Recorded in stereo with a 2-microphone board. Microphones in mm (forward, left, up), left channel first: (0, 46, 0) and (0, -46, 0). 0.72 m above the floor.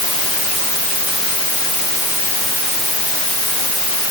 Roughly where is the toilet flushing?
No toilet flushing in this recording.